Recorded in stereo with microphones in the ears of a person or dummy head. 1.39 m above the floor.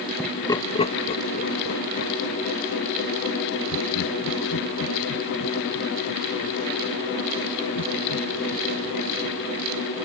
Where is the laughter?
5° right (ahead or behind); by 9.7 s 85° left.